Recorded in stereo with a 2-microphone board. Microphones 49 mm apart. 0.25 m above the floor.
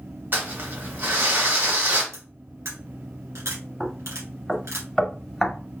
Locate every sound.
0.3 s crumpling: 50° right (ahead or behind), 1.8 m
2.1 s cutlery clinking: 75° right (ahead or behind), 2 m
3.8 s knocking: 5° left (ahead or behind), 0.6 m